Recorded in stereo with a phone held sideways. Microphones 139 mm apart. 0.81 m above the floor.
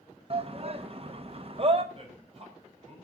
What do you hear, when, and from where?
0.3 s a shout: 45° right (ahead or behind), 0.9 m
1.9 s a man speaking: 45° right (ahead or behind), 5.5 m